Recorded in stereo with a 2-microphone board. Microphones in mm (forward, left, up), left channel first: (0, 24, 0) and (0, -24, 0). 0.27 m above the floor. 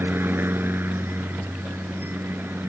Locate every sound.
0.0 s a helicopter: 50° right (ahead or behind); by 2.7 s 55° right (ahead or behind)